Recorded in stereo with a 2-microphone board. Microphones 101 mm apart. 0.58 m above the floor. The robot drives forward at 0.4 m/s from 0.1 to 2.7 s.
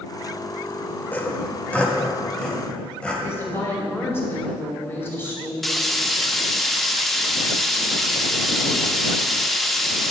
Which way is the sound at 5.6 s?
5° left (ahead or behind).